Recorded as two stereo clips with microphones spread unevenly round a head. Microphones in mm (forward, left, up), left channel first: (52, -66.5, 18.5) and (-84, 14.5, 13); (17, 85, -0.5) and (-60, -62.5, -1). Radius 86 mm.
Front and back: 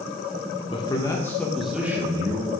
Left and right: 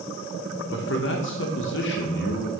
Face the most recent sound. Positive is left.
turn(degrees=85)